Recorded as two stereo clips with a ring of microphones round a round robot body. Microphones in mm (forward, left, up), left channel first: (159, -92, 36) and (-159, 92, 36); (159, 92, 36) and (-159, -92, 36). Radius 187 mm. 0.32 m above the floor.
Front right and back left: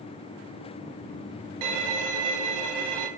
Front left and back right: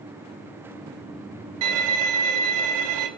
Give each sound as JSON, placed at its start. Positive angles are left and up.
{"t": 1.6, "sound": "a violin", "azimuth_deg": 180, "distance_m": 0.6}